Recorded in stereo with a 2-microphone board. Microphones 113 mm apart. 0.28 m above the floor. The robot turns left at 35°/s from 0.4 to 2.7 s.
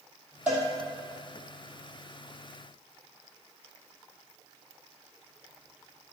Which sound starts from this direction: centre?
A cowbell, at 0.5 s.